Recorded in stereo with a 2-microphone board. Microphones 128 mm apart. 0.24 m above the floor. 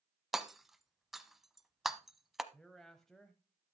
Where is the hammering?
Centre (ahead or behind), 0.7 m.